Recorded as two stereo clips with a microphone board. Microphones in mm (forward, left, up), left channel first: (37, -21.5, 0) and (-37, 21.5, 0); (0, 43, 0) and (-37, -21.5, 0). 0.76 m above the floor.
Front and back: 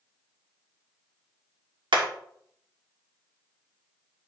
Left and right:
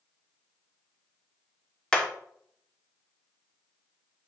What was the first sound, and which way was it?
Hammering, 135° left.